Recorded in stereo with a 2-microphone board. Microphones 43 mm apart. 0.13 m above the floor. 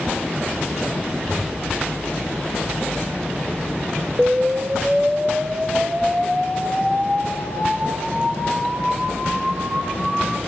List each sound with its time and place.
1.2 s whispering: 10° right (ahead or behind), 1.5 m
4.2 s an explosion: 30° right (ahead or behind), 0.5 m